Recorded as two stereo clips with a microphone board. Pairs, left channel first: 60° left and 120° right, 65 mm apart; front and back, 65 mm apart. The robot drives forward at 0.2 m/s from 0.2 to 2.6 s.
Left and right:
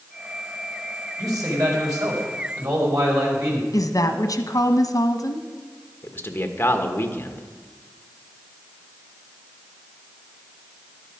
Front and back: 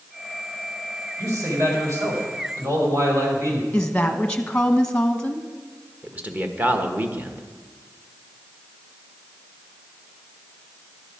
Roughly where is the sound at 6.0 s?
Behind left.